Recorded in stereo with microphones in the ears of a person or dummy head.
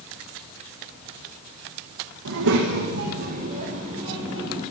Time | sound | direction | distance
2.2 | a child speaking | 70° right (ahead or behind) | 1.5 m